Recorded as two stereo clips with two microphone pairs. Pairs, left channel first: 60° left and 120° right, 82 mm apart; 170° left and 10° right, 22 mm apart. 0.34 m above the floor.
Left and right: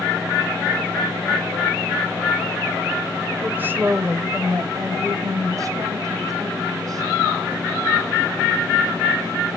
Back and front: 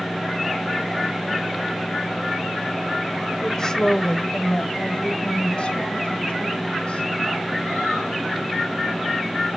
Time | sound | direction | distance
3.4 | a woman speaking | 175° right | 1.2 m